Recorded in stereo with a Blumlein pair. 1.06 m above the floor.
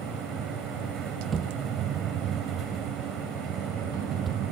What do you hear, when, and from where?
0.0 s a fan: 30° right
1.3 s a thud: 20° right